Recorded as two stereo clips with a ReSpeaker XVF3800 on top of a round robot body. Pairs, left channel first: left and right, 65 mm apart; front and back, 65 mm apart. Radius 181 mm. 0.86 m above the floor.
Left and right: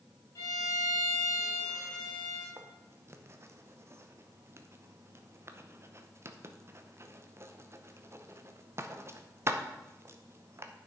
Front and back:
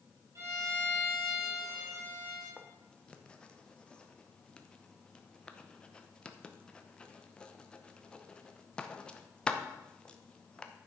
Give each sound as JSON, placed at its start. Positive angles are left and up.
{"t": 0.3, "sound": "a violin", "azimuth_deg": 135, "distance_m": 3.0}
{"t": 2.6, "sound": "writing", "azimuth_deg": -70, "distance_m": 1.1}